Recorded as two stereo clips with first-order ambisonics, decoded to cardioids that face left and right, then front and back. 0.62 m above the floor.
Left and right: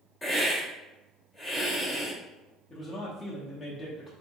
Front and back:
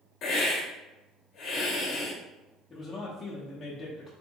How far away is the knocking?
No knocking in this recording.